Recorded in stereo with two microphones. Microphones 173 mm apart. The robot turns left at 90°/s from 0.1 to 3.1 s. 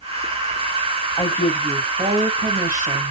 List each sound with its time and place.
1.2 s a woman speaking: 35° left, 0.8 m; by 3.1 s 140° right, 0.8 m